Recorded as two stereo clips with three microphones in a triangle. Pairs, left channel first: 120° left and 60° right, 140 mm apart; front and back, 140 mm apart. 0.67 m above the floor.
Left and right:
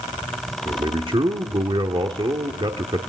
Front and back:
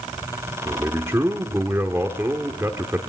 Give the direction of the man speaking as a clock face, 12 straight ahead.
4 o'clock.